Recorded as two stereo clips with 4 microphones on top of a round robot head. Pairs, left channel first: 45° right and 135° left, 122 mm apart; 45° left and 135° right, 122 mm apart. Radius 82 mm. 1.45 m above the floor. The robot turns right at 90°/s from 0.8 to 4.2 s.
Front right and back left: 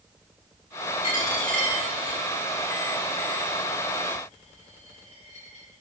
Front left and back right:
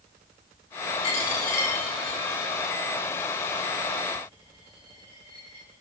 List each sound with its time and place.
1.0 s a dropped coin: straight ahead, 4 m; by 5.8 s 75° right, 4 m